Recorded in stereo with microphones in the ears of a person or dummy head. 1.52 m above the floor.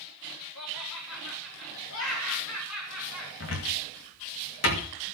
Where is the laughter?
75° left (ahead or behind), 4 m.